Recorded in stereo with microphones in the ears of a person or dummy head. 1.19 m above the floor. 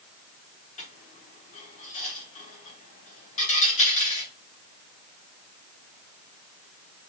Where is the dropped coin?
40° left (ahead or behind), 1.4 m.